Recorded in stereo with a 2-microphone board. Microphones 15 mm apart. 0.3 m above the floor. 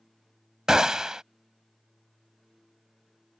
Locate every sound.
0.7 s a gunshot: 45° right (ahead or behind)